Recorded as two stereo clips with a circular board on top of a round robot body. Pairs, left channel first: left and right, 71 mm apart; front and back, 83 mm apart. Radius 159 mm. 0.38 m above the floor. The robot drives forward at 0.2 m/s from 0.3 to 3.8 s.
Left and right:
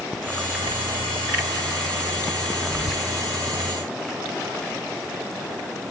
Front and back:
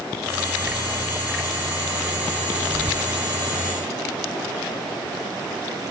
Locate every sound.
2.7 s whispering: 170° right, 0.9 m